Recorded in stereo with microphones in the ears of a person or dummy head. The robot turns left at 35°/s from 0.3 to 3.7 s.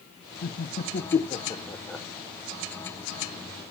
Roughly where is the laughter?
Left.